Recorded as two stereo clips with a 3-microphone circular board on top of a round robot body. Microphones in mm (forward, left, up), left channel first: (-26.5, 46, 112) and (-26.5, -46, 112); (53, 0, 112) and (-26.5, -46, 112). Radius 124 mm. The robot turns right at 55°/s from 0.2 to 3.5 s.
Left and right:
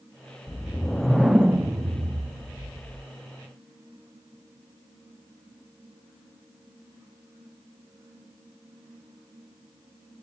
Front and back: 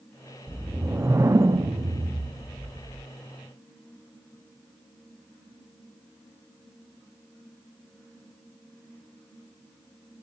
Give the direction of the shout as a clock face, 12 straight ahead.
No shout in this recording.